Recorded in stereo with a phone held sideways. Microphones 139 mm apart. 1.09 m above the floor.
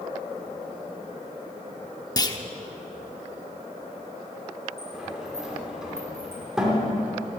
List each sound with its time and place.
2.2 s a clunk: 30° left (ahead or behind), 0.8 m
4.8 s a sliding door: 5° right (ahead or behind), 2.5 m